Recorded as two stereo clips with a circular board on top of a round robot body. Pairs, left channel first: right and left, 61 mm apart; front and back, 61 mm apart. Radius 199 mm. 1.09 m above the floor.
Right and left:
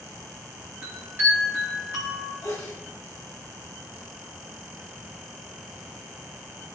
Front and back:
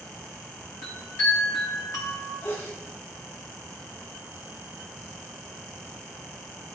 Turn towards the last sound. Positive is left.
turn(degrees=-60)